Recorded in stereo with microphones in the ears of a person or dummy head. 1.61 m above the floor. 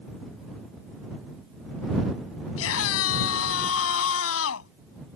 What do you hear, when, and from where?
2.6 s a scream: 75° left (ahead or behind)